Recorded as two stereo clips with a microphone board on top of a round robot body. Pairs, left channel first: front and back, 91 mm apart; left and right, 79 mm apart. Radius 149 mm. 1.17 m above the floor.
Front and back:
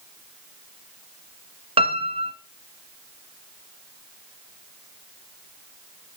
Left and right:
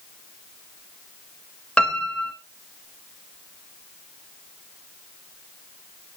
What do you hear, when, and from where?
1.8 s a piano: 170° left, 1.5 m